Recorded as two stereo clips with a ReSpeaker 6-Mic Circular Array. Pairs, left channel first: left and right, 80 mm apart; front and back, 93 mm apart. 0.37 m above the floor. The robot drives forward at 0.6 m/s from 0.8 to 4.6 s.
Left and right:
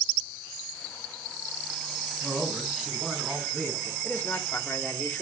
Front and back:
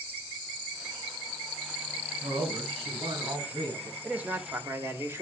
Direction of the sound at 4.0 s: 115° left.